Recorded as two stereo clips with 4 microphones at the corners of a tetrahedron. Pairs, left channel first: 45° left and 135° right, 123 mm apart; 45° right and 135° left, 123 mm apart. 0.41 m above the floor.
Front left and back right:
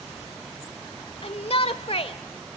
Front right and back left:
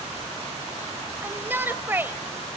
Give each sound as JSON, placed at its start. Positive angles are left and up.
{"t": 1.2, "sound": "a shout", "azimuth_deg": 65, "distance_m": 1.4}